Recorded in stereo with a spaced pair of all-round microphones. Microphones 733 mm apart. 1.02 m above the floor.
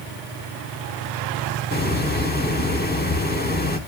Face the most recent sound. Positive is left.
turn(degrees=15)  # may be behind; listen again after turning